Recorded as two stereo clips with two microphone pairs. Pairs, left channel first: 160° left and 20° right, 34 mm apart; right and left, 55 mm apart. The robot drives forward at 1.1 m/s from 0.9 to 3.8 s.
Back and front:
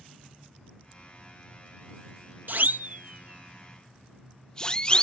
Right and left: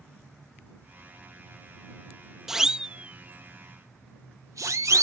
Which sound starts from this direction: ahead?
A siren, at 2.5 s.